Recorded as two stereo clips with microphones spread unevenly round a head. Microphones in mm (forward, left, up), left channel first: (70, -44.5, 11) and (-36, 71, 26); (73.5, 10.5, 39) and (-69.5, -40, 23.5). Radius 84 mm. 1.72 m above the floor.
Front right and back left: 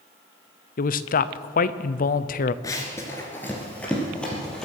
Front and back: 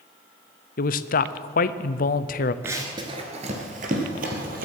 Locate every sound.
0.8 s a man speaking: 10° right, 0.6 m
2.6 s running footsteps: 95° right, 1.7 m; by 4.7 s 135° right, 3.5 m